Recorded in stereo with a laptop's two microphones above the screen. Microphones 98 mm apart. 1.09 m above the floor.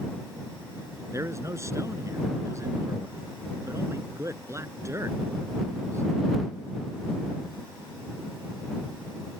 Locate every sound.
1.1 s a man speaking: 30° right (ahead or behind)